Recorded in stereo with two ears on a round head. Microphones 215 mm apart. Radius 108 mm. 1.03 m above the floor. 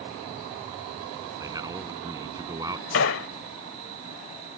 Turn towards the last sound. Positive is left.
turn(degrees=60)  # may be behind; listen again after turning